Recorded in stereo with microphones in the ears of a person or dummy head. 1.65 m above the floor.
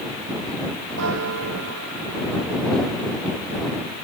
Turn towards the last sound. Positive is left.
turn(degrees=-80)